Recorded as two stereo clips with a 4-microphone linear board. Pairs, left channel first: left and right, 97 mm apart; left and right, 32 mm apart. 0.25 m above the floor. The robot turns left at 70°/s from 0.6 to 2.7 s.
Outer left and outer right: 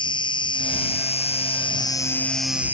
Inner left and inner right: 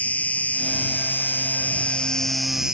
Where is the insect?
130° left; by 2.7 s 15° right.